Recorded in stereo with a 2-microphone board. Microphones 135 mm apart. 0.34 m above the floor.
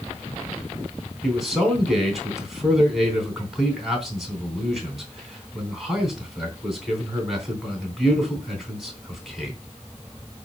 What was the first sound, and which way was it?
A man speaking, centre (ahead or behind).